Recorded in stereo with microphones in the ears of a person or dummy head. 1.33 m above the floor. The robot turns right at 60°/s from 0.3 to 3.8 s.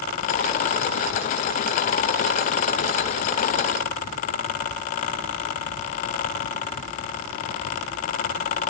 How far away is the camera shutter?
I don't hear a camera shutter.